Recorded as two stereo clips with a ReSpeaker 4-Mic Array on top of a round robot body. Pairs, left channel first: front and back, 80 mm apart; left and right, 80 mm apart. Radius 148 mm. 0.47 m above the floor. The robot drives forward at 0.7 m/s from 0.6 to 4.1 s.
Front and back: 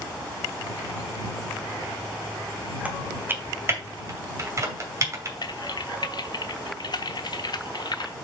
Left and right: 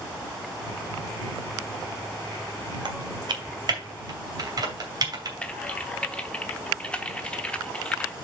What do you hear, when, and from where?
2.9 s typing on a keyboard: 110° right, 2 m; by 5.3 s 130° right, 2.5 m
5.4 s typing on a keyboard: 15° left, 1.0 m